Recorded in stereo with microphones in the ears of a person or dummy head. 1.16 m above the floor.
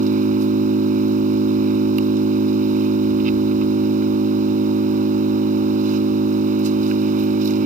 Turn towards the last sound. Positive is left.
turn(degrees=-45)  # may be behind; listen again after turning